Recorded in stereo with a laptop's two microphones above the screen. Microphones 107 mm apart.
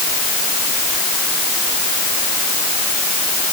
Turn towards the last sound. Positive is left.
No sound to turn to.